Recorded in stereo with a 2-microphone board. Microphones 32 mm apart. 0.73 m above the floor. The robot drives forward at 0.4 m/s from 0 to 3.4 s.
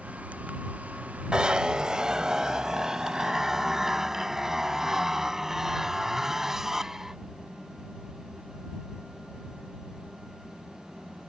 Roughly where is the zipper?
Right.